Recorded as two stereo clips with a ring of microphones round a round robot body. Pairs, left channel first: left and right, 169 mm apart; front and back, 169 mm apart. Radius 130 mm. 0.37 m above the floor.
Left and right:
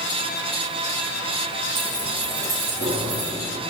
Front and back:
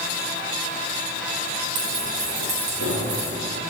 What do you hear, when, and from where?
1.8 s keys jangling: 150° right, 7.5 m; by 3.3 s 140° right, 7.5 m